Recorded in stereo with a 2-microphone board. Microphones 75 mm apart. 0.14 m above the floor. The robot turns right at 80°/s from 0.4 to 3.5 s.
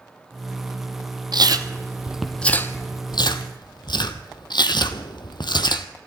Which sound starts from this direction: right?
Chewing, at 1.3 s.